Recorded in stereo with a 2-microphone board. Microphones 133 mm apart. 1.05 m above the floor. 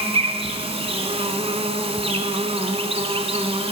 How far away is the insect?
About 1.3 m.